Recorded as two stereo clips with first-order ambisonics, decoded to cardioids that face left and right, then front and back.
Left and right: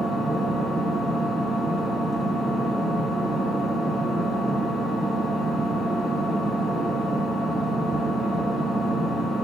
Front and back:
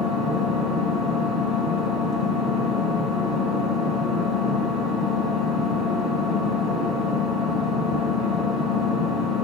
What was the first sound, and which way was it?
An engine running, 155° right.